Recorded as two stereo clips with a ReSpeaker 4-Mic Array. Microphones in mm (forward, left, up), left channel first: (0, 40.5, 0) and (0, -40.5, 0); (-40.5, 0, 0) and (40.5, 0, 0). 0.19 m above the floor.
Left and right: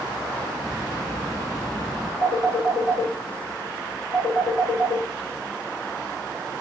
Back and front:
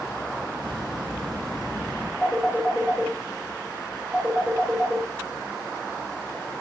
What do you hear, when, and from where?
0.6 s a bird: 5° left, 1.1 m
2.2 s a phone ringing: 90° left, 1.4 m